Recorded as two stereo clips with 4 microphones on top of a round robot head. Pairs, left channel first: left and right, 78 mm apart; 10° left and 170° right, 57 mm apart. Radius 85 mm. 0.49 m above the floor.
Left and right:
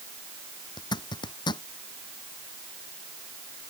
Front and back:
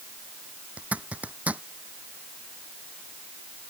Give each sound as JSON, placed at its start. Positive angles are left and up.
{"t": 0.8, "sound": "a zipper", "azimuth_deg": 125}